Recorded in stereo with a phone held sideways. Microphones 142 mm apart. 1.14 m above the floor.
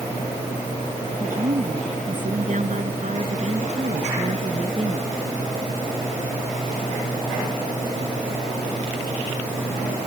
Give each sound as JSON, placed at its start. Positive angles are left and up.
{"t": 1.2, "sound": "a woman speaking", "side_deg": -65}